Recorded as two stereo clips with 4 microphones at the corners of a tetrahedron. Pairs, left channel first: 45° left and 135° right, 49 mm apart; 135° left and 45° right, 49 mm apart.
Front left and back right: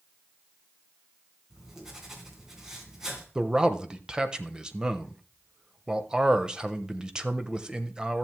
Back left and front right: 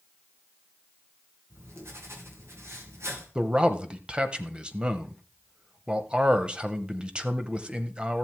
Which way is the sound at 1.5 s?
60° right.